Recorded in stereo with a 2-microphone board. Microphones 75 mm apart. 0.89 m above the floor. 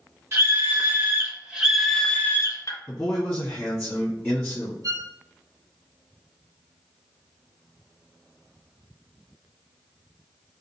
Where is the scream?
35° right (ahead or behind), 2.0 m; by 2.8 s 50° left (ahead or behind), 0.9 m.